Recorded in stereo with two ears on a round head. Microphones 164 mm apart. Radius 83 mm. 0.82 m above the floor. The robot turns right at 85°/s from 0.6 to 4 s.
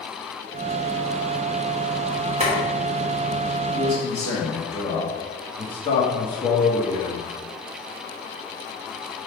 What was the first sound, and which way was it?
Boiling, 35° right (ahead or behind).